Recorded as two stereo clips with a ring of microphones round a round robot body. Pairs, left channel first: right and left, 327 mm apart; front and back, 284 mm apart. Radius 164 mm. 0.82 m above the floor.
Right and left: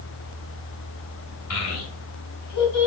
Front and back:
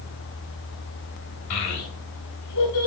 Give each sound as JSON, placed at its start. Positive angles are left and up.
{"t": 1.5, "sound": "a child speaking", "azimuth_deg": -45, "distance_m": 2.5}